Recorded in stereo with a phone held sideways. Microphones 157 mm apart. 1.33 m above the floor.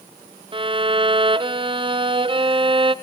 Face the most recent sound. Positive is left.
turn(degrees=-35)  # may be behind; listen again after turning